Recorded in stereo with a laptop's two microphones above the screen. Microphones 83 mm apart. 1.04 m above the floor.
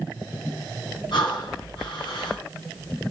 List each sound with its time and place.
1.1 s breathing: 65° left (ahead or behind), 3.5 m